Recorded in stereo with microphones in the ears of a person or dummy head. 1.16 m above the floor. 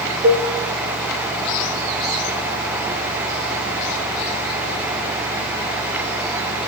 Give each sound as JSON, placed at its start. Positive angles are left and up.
{"t": 0.2, "sound": "a cowbell", "side_deg": -35, "distance_m": 0.9}